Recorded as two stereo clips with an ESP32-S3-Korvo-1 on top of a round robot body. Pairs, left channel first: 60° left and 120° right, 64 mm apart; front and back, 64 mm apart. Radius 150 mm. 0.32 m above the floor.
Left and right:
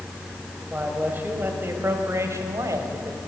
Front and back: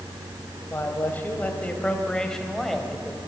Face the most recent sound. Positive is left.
turn(degrees=-90)